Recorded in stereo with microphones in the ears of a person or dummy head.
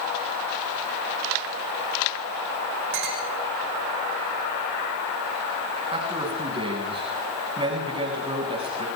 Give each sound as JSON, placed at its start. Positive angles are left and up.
{"t": 2.9, "sound": "a clink", "side_deg": -65, "distance_m": 4.5}
{"t": 5.9, "sound": "a man speaking", "side_deg": -30, "distance_m": 7.5}